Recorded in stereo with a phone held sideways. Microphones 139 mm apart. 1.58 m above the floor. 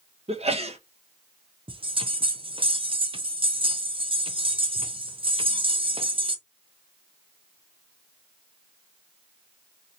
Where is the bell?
40° right (ahead or behind), 0.6 m.